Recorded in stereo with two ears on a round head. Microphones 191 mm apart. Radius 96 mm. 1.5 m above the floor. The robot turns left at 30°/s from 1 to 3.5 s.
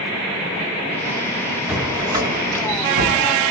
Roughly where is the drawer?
Ahead.